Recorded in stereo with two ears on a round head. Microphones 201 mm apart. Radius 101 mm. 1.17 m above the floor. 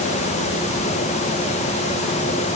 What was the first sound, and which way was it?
Only background noise.